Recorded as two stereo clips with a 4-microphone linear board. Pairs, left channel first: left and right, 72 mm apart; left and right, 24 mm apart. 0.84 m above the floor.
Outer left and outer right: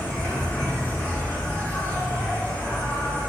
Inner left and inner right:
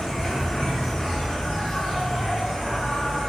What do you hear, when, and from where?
0.0 s an insect: 30° left (ahead or behind), 0.9 m